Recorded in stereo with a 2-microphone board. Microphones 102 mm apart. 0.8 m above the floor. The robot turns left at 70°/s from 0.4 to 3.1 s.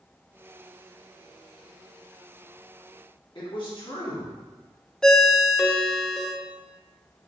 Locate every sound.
3.4 s a man speaking: 50° left (ahead or behind), 1.6 m
5.0 s a ringtone: 5° left (ahead or behind), 0.6 m